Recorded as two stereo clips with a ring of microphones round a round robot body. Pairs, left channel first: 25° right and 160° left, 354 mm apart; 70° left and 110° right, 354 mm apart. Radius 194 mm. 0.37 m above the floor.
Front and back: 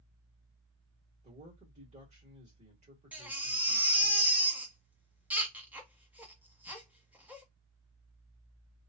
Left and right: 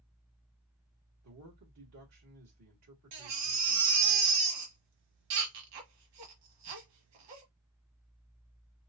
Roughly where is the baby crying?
Behind right.